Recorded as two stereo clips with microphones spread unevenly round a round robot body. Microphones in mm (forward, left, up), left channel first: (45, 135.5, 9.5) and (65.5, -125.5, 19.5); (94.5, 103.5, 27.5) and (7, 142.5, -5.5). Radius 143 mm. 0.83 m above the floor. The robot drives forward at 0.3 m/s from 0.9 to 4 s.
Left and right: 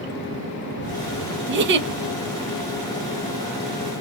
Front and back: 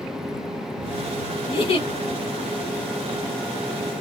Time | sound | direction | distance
1.5 | a giggle | 55° right | 0.7 m